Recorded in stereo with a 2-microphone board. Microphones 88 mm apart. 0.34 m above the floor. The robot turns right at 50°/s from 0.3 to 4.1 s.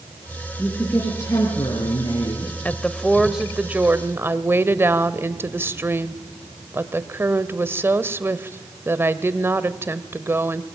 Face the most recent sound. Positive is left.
turn(degrees=-135)